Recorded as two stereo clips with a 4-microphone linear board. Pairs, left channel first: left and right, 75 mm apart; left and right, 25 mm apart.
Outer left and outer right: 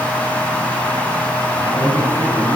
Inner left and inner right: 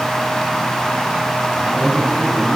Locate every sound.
1.5 s a man speaking: 45° left (ahead or behind), 4.5 m; by 2.6 s 40° left (ahead or behind), 4 m